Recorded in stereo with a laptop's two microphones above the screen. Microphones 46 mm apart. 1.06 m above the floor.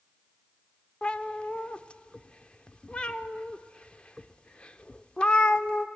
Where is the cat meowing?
25° left (ahead or behind), 0.8 m.